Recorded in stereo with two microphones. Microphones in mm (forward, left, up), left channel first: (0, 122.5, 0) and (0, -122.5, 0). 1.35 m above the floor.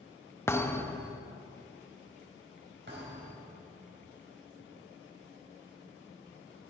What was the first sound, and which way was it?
A thud, 10° left (ahead or behind).